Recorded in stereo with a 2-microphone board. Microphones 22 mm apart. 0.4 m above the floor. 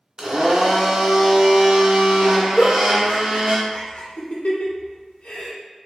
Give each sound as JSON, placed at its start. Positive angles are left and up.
{"t": 0.2, "sound": "a blender", "side_deg": -40, "distance_m": 0.7}
{"t": 2.6, "sound": "a giggle", "side_deg": 80, "distance_m": 0.9}